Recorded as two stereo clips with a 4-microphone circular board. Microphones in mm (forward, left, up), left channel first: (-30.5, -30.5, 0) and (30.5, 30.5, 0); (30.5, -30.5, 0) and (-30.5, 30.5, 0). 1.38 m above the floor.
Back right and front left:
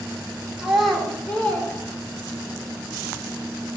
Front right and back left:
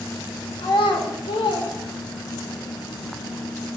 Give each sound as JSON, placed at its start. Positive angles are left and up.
{"t": 0.6, "sound": "a child speaking", "azimuth_deg": -35, "distance_m": 2.5}